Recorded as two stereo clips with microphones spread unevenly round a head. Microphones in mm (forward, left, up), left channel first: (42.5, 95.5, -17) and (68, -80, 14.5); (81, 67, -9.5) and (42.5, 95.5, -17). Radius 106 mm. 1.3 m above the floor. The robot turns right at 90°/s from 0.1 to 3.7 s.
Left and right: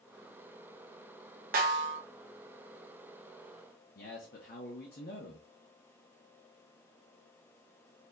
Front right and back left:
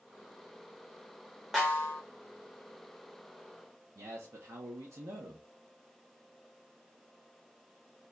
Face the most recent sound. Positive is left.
turn(degrees=150)